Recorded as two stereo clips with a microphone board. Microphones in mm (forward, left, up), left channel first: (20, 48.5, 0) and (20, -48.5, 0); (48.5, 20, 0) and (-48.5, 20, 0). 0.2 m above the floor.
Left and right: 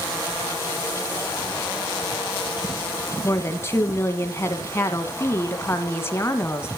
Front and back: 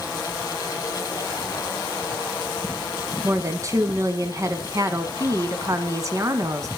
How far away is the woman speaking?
About 2.0 m.